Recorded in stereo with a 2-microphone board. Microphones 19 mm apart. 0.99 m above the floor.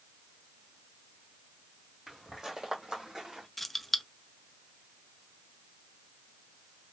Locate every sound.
2.1 s footsteps: 20° right (ahead or behind), 2 m; by 3.5 s 45° right (ahead or behind), 2.5 m
3.6 s keys jangling: 10° left (ahead or behind), 0.5 m